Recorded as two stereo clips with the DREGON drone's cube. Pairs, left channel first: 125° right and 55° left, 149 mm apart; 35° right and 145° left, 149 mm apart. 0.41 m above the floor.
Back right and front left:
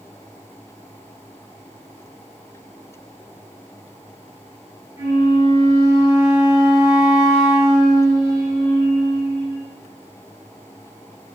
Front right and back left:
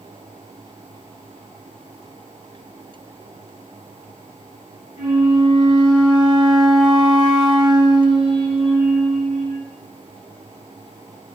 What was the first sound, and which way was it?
A flute, 160° right.